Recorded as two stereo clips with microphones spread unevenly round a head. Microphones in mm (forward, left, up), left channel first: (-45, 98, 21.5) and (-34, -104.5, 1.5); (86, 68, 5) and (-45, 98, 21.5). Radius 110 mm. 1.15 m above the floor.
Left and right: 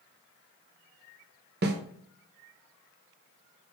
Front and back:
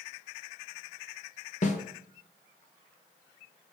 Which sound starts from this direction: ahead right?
A snare drum, at 1.6 s.